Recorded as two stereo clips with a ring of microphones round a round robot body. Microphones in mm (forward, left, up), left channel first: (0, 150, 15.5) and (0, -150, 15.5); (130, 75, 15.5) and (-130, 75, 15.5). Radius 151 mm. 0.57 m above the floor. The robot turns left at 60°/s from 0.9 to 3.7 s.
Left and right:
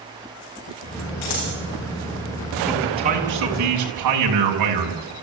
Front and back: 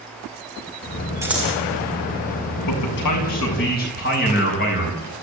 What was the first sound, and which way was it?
Scissors, 100° left.